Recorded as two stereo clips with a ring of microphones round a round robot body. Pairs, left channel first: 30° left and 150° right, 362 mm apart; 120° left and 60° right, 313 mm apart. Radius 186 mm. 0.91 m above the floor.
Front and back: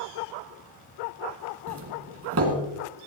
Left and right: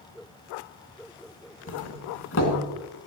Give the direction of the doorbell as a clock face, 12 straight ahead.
7 o'clock.